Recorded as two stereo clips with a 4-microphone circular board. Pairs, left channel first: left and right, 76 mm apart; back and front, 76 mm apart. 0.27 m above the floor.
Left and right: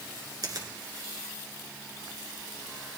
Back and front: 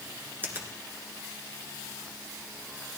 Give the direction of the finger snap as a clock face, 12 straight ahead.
2 o'clock.